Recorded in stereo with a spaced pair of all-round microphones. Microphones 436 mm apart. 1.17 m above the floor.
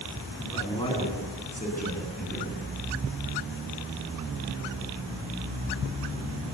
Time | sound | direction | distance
0.4 | a man speaking | 10° left (ahead or behind) | 9 m